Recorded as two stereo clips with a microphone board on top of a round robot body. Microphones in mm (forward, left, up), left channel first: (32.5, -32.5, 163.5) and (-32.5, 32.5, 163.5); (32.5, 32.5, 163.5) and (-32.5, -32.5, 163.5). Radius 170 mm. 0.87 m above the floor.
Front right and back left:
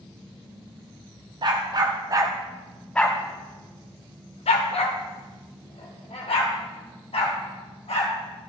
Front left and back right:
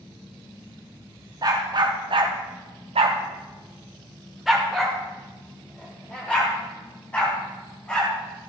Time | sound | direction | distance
1.4 | a dog barking | 175° left | 1.4 m